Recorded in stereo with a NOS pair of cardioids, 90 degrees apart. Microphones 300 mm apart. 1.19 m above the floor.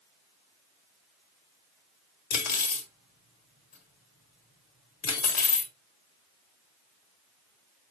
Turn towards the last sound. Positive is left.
turn(degrees=65)